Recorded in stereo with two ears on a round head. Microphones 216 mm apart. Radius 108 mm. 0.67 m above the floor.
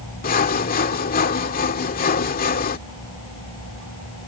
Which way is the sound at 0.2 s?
40° left (ahead or behind).